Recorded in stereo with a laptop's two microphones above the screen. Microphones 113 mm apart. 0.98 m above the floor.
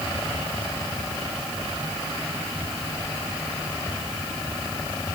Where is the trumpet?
I don't hear a trumpet.